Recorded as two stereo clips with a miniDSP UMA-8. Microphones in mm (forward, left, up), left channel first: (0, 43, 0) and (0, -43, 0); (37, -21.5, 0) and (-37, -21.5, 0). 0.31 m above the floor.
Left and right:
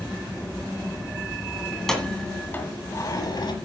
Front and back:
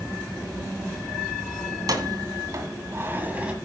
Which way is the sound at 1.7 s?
Straight behind.